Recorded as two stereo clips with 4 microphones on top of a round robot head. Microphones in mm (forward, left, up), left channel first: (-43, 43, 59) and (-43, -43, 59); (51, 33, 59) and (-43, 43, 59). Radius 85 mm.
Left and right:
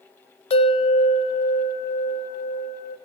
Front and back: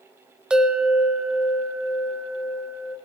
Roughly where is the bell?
Left.